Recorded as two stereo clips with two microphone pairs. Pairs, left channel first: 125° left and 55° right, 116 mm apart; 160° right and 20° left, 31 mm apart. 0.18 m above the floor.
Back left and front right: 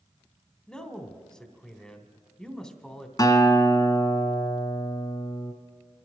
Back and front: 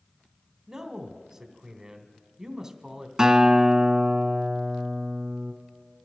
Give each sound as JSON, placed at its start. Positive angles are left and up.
{"t": 0.7, "sound": "a man speaking", "azimuth_deg": 45, "distance_m": 1.0}
{"t": 3.2, "sound": "a guitar", "azimuth_deg": 85, "distance_m": 1.3}